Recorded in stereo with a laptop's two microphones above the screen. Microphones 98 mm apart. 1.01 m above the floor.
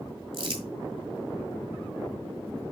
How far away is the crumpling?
About 1.7 m.